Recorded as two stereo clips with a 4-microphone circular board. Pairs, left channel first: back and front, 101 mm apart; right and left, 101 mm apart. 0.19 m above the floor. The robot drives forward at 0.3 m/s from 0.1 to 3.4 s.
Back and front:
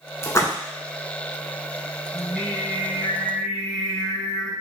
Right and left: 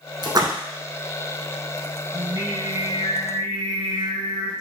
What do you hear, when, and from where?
0.2 s a splash: 125° left, 0.8 m; by 0.5 s 130° left, 0.8 m
2.1 s singing: 105° left, 1.9 m; by 4.5 s 120° left, 2.0 m